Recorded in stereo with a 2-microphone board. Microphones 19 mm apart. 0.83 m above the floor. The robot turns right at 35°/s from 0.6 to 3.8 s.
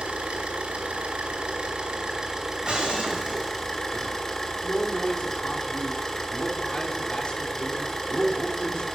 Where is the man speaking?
60° left (ahead or behind), 2.5 m.